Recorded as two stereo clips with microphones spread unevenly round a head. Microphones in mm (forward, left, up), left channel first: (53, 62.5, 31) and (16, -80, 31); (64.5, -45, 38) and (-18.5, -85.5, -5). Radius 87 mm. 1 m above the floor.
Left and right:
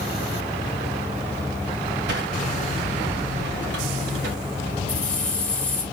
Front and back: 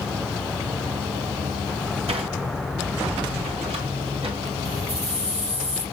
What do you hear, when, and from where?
2.1 s a sliding door: 130° right, 2 m
4.9 s keys jangling: 155° left, 4 m